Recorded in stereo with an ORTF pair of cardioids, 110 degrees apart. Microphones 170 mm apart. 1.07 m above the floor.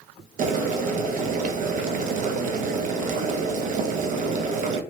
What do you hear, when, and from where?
0.4 s boiling: 50° right, 0.6 m